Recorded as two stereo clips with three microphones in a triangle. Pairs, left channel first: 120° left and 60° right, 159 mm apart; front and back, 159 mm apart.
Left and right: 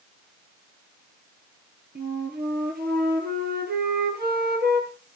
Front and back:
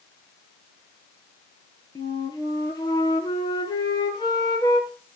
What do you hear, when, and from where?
1.9 s a flute: 65° right, 2.5 m